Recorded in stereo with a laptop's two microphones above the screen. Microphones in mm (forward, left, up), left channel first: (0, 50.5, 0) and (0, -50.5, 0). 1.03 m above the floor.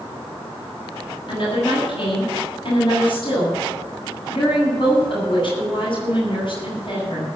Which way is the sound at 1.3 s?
55° left (ahead or behind).